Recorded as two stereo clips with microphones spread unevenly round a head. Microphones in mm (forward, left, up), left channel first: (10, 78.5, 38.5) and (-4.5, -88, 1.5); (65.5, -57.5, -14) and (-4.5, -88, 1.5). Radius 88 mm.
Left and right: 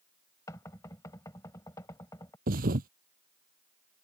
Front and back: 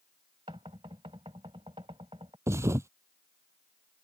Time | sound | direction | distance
0.5 | knocking | 155° left | ?
2.5 | a thud | 135° right | ?